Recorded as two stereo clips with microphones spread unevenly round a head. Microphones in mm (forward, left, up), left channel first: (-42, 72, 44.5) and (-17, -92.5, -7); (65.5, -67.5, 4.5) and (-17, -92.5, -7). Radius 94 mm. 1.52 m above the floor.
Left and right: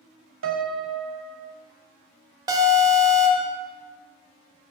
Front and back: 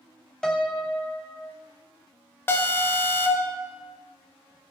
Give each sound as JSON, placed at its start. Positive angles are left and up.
{"t": 0.4, "sound": "a piano", "azimuth_deg": -65, "distance_m": 0.5}
{"t": 2.5, "sound": "an alarm", "azimuth_deg": 5, "distance_m": 0.6}